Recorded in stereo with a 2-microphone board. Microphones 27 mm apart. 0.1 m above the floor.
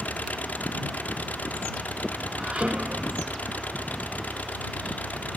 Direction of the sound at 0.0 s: 90° left.